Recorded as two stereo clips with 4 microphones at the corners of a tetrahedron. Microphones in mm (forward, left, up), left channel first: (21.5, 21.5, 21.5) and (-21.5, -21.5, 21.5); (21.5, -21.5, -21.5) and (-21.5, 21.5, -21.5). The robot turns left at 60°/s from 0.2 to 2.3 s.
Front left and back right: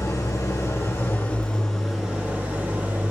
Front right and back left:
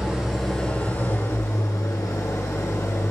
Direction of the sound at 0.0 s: 55° left.